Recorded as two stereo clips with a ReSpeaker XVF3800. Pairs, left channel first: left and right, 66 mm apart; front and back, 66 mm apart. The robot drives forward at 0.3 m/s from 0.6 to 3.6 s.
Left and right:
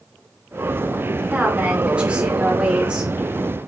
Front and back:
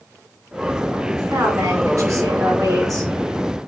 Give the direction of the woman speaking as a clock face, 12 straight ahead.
5 o'clock.